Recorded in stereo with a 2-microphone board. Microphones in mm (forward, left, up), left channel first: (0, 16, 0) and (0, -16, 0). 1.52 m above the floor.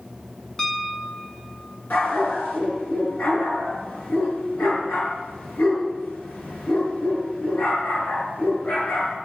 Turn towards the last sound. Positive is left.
turn(degrees=65)  # may be behind; listen again after turning